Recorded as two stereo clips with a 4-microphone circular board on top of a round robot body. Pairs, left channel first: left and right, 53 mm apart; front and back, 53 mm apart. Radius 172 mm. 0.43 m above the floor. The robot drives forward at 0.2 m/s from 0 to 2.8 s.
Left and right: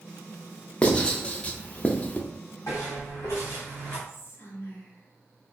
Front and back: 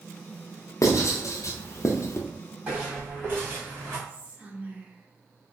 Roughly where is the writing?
Ahead.